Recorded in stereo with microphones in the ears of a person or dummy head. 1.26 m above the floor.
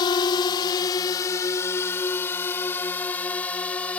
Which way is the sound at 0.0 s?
25° left (ahead or behind).